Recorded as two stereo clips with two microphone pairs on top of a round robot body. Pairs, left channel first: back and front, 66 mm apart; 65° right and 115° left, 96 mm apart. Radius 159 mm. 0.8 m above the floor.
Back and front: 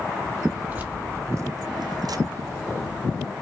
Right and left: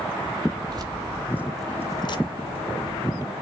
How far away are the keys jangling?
About 1.2 m.